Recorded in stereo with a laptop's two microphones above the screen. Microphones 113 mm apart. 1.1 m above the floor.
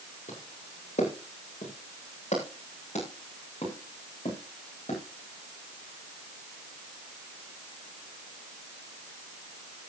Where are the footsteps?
80° left, 7 m; by 5.0 s 60° left (ahead or behind), 9 m.